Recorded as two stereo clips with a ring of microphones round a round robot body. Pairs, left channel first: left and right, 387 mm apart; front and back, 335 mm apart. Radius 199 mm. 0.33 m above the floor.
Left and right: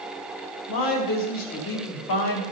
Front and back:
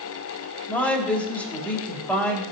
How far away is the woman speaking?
About 2 m.